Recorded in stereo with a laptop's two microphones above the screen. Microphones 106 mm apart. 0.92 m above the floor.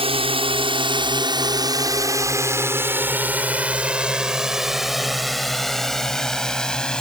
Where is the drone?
60° right (ahead or behind); by 7.0 s 5° left (ahead or behind).